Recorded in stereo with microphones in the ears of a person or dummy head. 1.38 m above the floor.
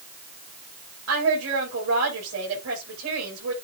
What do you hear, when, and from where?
1.1 s a woman speaking: 90° right, 8.5 m